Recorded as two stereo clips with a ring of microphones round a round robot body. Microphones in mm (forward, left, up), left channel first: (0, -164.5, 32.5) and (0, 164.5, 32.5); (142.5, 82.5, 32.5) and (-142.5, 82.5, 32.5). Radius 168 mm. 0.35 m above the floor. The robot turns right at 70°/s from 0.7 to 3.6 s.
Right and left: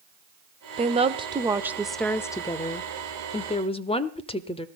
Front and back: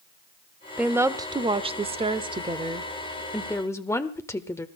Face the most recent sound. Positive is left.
turn(degrees=-60)